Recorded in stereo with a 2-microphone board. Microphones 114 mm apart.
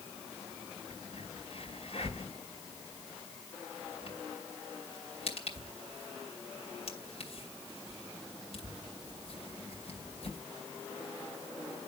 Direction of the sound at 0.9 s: 60° left (ahead or behind).